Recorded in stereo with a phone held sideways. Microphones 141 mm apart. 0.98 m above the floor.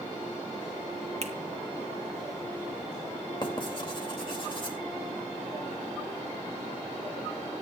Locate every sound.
1.2 s a finger snap: 50° right (ahead or behind), 1.2 m
3.4 s writing: 40° left (ahead or behind), 2.5 m